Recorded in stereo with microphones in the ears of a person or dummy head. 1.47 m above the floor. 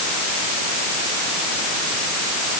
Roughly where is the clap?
No clap in this recording.